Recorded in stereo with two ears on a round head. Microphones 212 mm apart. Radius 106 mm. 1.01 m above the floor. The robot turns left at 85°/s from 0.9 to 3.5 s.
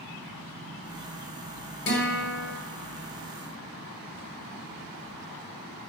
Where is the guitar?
110° left, 1.2 m; by 2.5 s 55° left, 1.2 m.